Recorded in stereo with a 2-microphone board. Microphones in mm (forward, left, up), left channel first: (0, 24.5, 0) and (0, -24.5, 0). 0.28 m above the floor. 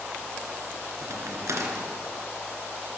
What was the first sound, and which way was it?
A crack, 75° right (ahead or behind).